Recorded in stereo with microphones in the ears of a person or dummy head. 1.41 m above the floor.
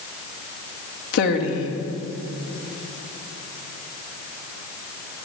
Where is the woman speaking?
80° left, 2 m.